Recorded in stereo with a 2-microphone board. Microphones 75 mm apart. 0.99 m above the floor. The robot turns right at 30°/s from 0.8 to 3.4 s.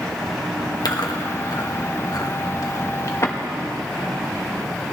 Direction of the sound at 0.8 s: 60° left (ahead or behind).